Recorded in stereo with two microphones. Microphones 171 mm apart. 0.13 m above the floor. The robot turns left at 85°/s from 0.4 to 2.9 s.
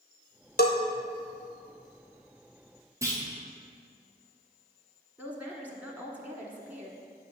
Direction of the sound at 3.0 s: 20° right (ahead or behind).